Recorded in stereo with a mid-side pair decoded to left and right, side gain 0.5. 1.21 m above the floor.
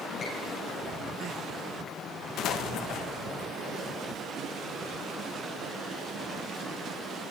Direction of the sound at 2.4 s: 70° left.